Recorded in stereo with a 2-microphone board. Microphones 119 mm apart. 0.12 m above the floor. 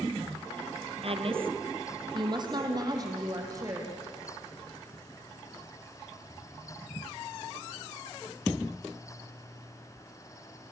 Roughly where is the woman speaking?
Right.